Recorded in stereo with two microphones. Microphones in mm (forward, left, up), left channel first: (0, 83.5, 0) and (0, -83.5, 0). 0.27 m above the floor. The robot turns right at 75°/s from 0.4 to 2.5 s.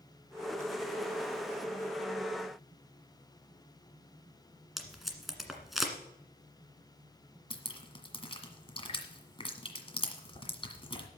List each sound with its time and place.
4.8 s tape being pulled: centre (ahead or behind), 1.7 m
7.5 s dripping: 35° left (ahead or behind), 1.6 m